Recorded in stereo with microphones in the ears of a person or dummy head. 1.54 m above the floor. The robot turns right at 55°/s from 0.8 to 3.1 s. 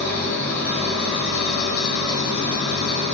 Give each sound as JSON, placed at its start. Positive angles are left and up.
{"t": 0.0, "sound": "an engine running", "azimuth_deg": 15, "distance_m": 1.3}